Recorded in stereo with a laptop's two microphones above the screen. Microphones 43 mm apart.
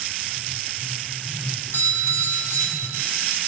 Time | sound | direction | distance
1.7 | a doorbell | 70° left (ahead or behind) | 2.5 m